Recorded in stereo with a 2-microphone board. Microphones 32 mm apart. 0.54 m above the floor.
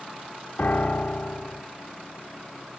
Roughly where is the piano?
Left.